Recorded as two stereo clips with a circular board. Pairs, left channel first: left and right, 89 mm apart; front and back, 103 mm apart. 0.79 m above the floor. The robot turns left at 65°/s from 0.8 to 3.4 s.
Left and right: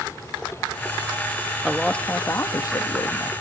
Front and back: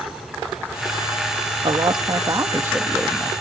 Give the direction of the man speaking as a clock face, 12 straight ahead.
6 o'clock.